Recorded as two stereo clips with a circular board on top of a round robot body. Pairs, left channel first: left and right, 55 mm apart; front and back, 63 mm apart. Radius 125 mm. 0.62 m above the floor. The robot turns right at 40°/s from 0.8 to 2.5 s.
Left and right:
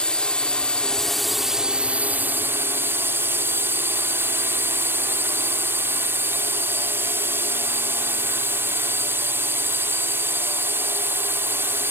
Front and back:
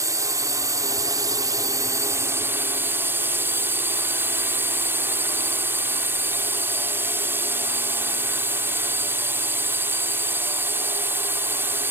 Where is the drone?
165° left; by 11.9 s 130° right.